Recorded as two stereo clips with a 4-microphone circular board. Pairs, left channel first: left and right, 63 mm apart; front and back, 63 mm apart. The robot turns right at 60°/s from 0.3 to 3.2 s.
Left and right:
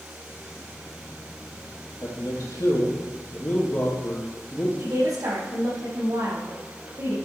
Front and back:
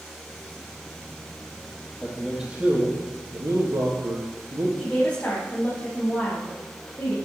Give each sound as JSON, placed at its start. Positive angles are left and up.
{"t": 2.0, "sound": "a man speaking", "azimuth_deg": 75, "distance_m": 4.5}
{"t": 4.8, "sound": "a woman speaking", "azimuth_deg": -70, "distance_m": 5.0}